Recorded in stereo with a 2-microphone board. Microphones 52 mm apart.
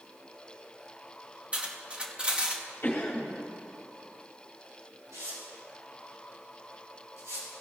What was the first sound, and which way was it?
Cutlery clinking, 30° right (ahead or behind).